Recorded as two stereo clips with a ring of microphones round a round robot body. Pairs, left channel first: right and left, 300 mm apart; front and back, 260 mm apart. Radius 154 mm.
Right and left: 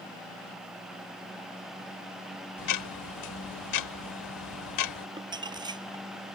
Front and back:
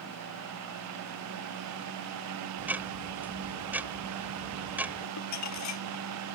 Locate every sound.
2.6 s ticking: 95° right
5.2 s crumpling: 15° left